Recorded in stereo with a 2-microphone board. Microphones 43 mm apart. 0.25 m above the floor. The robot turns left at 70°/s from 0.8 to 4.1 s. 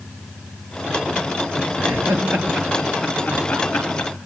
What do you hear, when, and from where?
1.8 s laughter: 65° right (ahead or behind), 4 m; by 4.1 s 75° left (ahead or behind), 4 m